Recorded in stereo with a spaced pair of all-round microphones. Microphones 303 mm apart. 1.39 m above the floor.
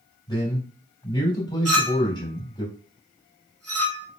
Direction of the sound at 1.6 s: 55° right (ahead or behind).